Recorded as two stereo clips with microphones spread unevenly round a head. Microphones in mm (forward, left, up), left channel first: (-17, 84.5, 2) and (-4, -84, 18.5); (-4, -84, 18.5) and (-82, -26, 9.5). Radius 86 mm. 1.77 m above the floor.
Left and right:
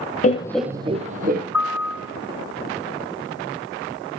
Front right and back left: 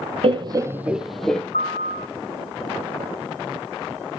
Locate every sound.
0.2 s laughter: 135° left, 0.6 m; by 1.4 s 120° right, 1.2 m
1.5 s a piano: straight ahead, 5.5 m